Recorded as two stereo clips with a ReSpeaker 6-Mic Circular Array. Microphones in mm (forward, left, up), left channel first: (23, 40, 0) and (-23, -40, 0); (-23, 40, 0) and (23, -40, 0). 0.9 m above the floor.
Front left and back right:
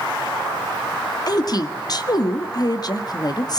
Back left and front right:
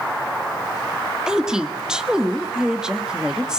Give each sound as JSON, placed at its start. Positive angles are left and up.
{"t": 1.3, "sound": "a woman speaking", "azimuth_deg": 20, "distance_m": 1.9}